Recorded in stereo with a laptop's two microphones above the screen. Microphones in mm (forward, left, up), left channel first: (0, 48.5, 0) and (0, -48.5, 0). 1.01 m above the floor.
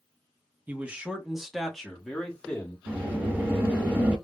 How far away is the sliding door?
About 1.0 m.